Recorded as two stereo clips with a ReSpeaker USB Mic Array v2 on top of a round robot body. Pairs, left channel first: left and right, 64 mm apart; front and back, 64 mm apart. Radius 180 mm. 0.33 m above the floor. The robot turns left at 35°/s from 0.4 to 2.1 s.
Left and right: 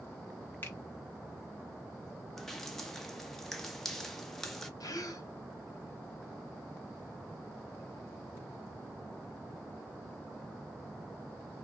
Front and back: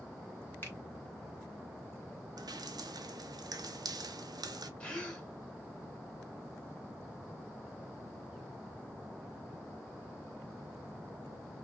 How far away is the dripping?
About 0.5 m.